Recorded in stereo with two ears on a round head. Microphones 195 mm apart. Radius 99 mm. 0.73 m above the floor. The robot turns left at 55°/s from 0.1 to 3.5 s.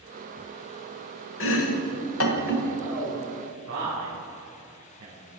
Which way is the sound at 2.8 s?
50° right (ahead or behind).